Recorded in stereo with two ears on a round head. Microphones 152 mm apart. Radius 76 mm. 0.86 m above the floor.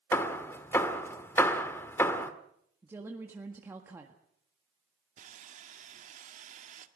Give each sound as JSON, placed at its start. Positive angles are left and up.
{"t": 0.1, "sound": "hammering", "side_deg": 15, "distance_m": 1.4}
{"t": 2.8, "sound": "a woman speaking", "side_deg": -15, "distance_m": 1.7}
{"t": 5.2, "sound": "sawing", "side_deg": -45, "distance_m": 1.8}